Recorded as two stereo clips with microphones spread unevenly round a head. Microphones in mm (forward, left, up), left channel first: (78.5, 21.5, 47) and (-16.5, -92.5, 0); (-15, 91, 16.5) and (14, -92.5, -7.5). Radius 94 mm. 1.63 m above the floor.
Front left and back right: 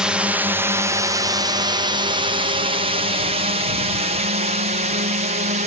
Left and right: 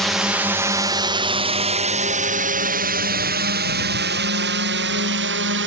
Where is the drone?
155° right; by 5.7 s 100° right.